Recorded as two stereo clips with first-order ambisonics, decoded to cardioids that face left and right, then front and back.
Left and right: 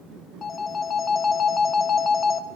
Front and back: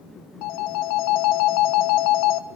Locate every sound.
0.4 s a phone ringing: 25° left, 0.7 m